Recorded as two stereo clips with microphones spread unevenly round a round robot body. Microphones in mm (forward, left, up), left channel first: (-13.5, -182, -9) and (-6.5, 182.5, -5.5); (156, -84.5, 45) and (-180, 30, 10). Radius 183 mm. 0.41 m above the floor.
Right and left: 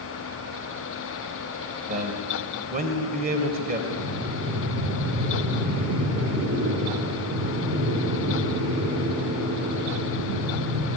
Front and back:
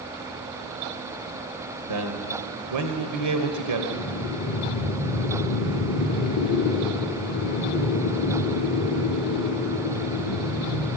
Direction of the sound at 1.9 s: 150° left.